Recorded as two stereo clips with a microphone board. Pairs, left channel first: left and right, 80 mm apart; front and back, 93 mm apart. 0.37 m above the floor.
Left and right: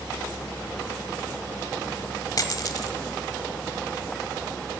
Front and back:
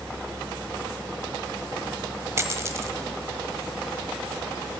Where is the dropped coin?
125° left, 1.0 m.